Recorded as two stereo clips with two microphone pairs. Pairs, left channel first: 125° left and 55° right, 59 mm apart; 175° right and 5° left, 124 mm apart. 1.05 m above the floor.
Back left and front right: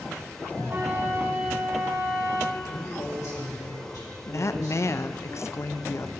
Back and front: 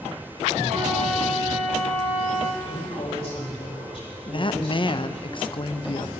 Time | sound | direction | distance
0.7 | a flute | 15° right | 1.4 m
2.6 | a man speaking | 140° left | 4.5 m
4.3 | a woman speaking | 150° left | 0.5 m